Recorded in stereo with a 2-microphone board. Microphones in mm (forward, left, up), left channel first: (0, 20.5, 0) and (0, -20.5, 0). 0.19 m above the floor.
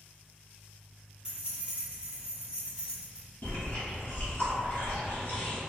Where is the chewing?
45° left (ahead or behind), 1.3 m.